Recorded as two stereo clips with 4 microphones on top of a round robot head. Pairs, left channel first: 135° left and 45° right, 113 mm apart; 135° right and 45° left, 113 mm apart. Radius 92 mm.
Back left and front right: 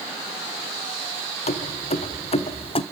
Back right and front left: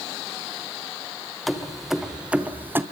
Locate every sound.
1.5 s keys jangling: 135° left, 1.6 m; by 2.8 s 110° left, 1.1 m